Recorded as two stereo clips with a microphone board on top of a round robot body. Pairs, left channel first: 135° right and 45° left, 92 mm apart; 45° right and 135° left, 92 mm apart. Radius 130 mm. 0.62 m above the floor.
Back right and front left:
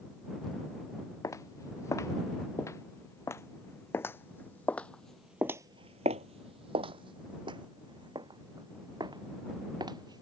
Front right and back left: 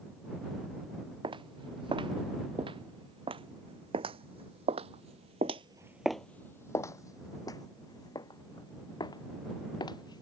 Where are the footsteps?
165° left; by 10.2 s straight ahead.